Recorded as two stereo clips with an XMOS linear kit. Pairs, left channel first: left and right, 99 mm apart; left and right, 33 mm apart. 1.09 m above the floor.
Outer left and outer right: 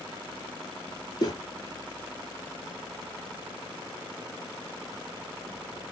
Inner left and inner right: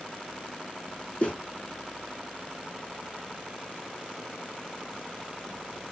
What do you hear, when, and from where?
1.2 s footsteps: 40° left (ahead or behind), 1.5 m